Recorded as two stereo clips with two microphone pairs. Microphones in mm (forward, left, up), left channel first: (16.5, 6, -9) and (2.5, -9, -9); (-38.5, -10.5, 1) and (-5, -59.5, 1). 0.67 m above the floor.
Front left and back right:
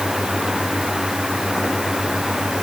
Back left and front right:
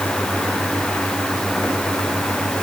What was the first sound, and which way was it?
Only background noise.